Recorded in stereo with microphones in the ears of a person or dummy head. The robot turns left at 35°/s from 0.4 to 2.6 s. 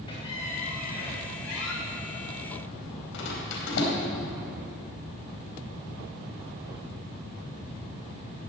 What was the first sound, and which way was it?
A squeak, 25° left (ahead or behind).